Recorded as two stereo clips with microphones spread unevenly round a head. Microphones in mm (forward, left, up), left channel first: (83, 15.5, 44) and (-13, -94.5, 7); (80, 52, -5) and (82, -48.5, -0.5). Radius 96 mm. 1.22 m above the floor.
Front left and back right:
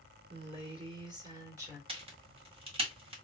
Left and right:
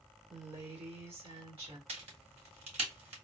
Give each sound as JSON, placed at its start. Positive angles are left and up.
{"t": 0.3, "sound": "a woman speaking", "azimuth_deg": -90, "distance_m": 2.0}
{"t": 1.9, "sound": "a crack", "azimuth_deg": -80, "distance_m": 1.8}